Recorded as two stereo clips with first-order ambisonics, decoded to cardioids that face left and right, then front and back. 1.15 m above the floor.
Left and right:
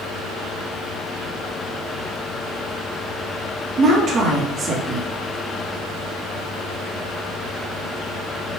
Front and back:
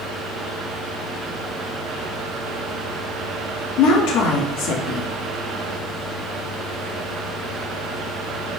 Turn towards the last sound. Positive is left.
turn(degrees=-30)